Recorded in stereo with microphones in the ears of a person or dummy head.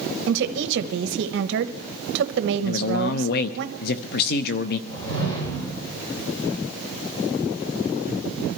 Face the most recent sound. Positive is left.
turn(degrees=25)  # may be behind; listen again after turning